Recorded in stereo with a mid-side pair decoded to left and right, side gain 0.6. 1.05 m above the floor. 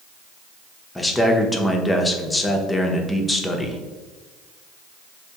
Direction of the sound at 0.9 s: 15° left.